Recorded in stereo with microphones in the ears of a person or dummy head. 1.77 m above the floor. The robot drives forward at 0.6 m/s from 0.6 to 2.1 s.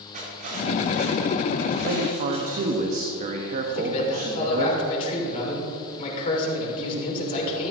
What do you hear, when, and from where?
0.1 s cutlery clinking: 50° right (ahead or behind), 2.5 m; by 2.8 s 35° right (ahead or behind), 3 m
1.8 s a man speaking: 50° right (ahead or behind), 0.9 m; by 4.7 s 40° right (ahead or behind), 1.0 m
3.7 s a man speaking: 35° left (ahead or behind), 3 m